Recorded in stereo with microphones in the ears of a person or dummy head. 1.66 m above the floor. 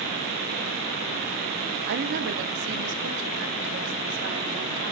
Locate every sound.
1.9 s a woman speaking: 65° right (ahead or behind), 2.0 m; by 4.9 s 80° right, 4.5 m